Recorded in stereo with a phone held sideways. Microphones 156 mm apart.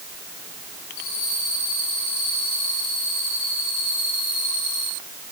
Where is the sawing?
No sawing in this recording.